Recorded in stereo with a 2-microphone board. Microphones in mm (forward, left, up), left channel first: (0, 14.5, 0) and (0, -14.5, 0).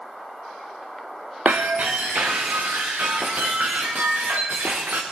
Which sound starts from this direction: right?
Breaking glass, at 1.4 s.